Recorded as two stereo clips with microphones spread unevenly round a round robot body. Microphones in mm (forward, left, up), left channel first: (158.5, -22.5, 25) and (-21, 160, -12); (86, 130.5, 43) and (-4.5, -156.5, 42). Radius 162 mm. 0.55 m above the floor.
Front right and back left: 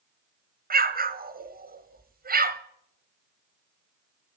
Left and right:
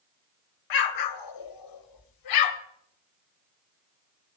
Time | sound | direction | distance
0.7 | an explosion | 80° left | 2.0 m